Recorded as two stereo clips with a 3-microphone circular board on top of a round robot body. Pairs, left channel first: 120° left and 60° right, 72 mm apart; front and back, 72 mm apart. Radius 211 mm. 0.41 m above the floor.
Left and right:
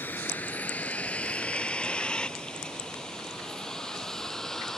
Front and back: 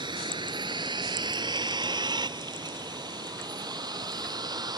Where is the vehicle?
175° right; by 4.8 s 155° right.